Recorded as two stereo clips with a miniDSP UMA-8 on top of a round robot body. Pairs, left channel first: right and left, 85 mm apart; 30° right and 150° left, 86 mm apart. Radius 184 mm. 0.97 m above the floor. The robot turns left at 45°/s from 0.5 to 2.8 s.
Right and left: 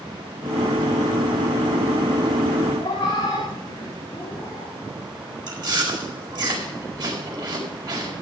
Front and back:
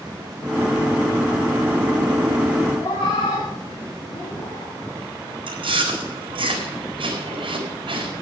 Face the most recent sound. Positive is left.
turn(degrees=130)